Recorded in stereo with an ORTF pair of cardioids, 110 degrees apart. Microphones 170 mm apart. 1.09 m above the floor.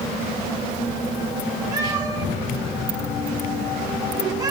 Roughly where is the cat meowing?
Ahead.